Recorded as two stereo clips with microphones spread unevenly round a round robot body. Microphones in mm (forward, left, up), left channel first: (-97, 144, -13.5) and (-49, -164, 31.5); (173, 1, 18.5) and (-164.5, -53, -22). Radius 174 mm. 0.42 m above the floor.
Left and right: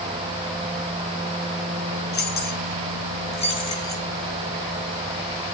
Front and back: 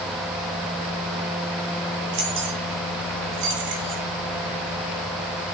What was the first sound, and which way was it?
Keys jangling, 155° left.